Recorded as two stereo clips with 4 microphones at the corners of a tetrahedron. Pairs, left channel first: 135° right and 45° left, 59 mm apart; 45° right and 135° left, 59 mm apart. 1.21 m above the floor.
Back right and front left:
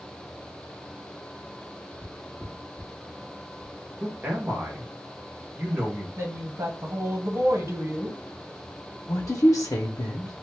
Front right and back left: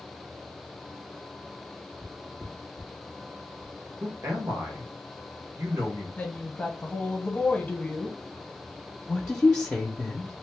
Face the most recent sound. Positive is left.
turn(degrees=-120)